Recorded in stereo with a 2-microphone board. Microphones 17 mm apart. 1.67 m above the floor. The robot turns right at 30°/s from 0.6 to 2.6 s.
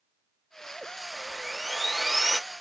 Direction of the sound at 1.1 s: Straight ahead.